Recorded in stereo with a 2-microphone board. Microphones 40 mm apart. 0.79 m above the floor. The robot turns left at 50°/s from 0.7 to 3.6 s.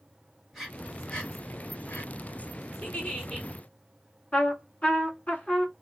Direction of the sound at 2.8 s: 45° left.